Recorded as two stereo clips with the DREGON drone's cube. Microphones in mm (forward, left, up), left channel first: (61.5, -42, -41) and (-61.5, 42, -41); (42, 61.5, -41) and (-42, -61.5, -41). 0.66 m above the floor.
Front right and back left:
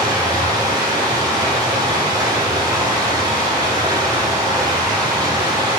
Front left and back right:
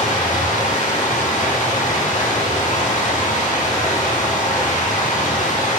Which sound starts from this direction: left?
Running water, at 0.0 s.